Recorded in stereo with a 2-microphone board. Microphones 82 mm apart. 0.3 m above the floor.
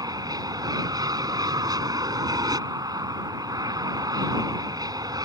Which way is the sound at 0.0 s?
45° right (ahead or behind).